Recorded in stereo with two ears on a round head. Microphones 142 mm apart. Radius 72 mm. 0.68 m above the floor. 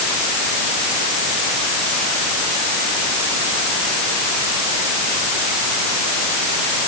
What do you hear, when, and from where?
Only background noise.